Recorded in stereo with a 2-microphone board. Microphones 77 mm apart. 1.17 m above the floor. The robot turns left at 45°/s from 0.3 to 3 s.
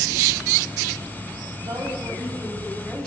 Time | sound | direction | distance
1.6 | a woman speaking | 130° right | 8 m